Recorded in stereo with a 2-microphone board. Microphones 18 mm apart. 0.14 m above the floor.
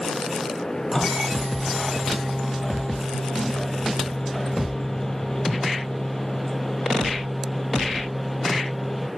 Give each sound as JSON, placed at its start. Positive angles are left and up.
{"t": 0.9, "sound": "a microwave", "side_deg": 25, "distance_m": 4.0}